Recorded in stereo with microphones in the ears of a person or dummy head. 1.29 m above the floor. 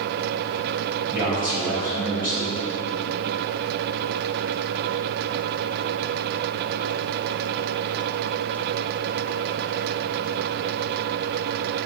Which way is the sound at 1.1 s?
10° right (ahead or behind).